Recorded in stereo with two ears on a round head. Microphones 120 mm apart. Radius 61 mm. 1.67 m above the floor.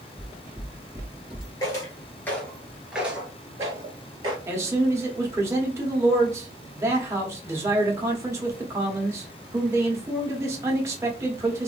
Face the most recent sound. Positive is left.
turn(degrees=-20)  # may be behind; listen again after turning